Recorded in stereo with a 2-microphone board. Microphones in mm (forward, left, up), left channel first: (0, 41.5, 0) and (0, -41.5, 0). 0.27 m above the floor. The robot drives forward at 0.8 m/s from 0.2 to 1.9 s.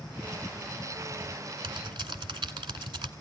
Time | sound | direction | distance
1.6 | typing on a keyboard | 75° right (ahead or behind) | 1.1 m